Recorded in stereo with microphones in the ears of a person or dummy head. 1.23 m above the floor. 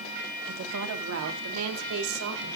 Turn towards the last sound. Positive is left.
turn(degrees=-80)